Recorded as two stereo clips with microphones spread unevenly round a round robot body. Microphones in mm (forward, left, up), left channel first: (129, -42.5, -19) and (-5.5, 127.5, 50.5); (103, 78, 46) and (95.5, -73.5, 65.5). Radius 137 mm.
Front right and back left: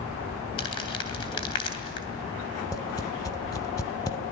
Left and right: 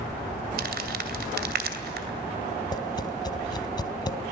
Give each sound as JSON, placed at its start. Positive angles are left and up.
{"t": 0.6, "sound": "crumpling", "azimuth_deg": -115, "distance_m": 2.5}
{"t": 2.7, "sound": "tapping", "azimuth_deg": 25, "distance_m": 1.6}